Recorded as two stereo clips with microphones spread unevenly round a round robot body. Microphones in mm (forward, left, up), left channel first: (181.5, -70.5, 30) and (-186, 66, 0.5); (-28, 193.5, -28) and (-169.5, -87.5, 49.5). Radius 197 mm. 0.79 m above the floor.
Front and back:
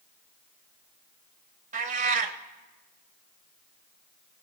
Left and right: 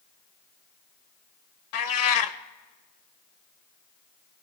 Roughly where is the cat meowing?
Left.